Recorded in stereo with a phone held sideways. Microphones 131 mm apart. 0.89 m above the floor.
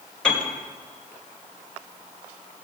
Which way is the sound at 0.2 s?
5° left (ahead or behind).